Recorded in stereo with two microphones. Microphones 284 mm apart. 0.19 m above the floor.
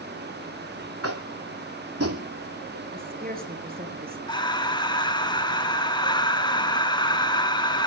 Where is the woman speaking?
30° right (ahead or behind), 3.5 m.